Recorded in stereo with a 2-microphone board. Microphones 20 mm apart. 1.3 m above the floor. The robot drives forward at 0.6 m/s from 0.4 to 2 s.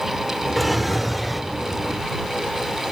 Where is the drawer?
5° right (ahead or behind), 1.1 m.